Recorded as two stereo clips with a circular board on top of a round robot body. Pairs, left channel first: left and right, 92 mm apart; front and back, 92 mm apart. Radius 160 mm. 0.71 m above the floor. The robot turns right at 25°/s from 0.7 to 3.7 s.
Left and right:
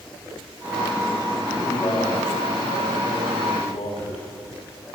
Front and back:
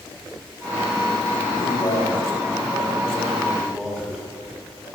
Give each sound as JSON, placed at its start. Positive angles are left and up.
{"t": 1.5, "sound": "a man speaking", "azimuth_deg": 45, "distance_m": 7.0}